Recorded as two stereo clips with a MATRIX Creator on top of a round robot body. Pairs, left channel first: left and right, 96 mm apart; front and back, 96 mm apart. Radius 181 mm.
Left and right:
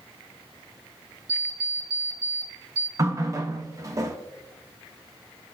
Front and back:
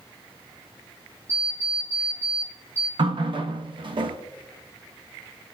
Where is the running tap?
150° right, 1.1 m.